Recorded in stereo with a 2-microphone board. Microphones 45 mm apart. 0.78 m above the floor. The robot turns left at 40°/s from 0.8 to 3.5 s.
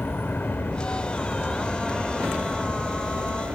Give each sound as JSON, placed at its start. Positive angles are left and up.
{"t": 0.0, "sound": "an aircraft", "azimuth_deg": 50}